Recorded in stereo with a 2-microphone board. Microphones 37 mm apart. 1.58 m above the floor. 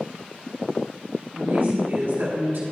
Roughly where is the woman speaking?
Right.